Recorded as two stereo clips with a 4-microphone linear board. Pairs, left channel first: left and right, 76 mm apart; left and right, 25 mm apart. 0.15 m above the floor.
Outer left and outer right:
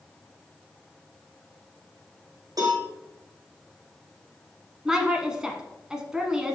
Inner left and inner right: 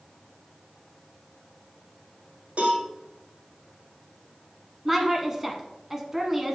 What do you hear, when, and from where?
2.6 s a cowbell: 60° right (ahead or behind), 3.5 m
4.8 s a woman speaking: 10° right (ahead or behind), 1.1 m